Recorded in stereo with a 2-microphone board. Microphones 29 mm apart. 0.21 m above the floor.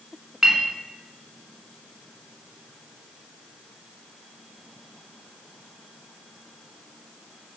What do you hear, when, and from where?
0.4 s a clink: 15° right (ahead or behind), 1.3 m